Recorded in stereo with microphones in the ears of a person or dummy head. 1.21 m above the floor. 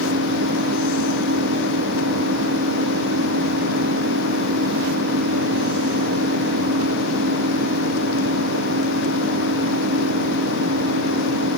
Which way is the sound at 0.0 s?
60° right (ahead or behind).